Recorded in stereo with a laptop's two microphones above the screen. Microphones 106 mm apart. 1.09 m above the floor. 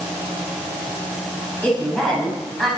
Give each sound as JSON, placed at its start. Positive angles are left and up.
{"t": 1.6, "sound": "a woman speaking", "side_deg": 10, "distance_m": 6.0}